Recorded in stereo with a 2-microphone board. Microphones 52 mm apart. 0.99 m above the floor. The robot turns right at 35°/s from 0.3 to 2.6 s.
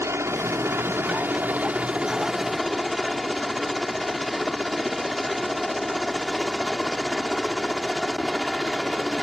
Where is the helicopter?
80° right; by 9.2 s straight ahead.